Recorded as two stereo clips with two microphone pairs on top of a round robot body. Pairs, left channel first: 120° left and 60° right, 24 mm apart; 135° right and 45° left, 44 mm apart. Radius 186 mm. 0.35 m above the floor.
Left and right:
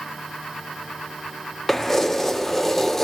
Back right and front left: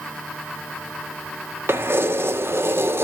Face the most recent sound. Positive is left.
turn(degrees=45)